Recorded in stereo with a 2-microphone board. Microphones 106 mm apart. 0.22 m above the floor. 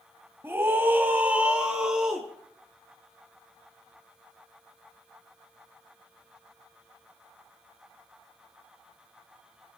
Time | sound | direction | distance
0.4 | a scream | 20° right (ahead or behind) | 1.2 m